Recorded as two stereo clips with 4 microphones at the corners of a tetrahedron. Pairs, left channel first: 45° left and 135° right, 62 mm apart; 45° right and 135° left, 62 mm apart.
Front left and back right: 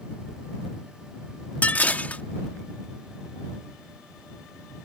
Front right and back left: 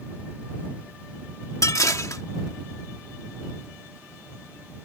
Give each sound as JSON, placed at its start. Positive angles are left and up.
{"t": 1.6, "sound": "dishes clattering", "azimuth_deg": -20}